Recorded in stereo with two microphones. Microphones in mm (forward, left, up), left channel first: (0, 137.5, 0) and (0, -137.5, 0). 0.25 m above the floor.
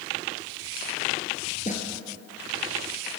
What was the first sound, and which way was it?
A snare drum, 25° left (ahead or behind).